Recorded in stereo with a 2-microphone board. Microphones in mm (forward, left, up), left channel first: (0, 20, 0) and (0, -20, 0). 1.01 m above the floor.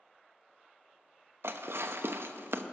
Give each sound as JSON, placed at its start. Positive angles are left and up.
{"t": 1.4, "sound": "dishes clattering", "side_deg": -75, "distance_m": 0.7}